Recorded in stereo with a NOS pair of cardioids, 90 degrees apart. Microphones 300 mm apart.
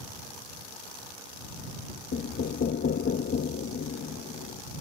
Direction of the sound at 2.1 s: 40° left.